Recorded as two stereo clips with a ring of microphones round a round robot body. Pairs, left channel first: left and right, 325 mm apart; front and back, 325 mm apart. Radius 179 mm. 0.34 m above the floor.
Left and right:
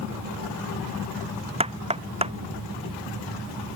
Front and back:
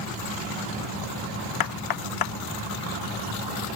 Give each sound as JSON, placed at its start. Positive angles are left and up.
{"t": 1.6, "sound": "knocking", "azimuth_deg": -20}